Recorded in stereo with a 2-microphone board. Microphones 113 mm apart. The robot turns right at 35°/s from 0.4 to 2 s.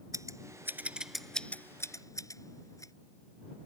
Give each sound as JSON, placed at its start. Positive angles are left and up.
{"t": 0.1, "sound": "scissors", "side_deg": -25}